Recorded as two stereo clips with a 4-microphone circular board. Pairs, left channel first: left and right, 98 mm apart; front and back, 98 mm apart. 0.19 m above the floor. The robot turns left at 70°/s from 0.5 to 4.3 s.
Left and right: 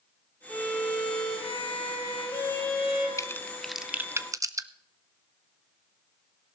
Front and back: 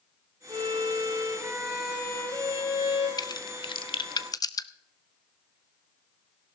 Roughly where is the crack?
Ahead left.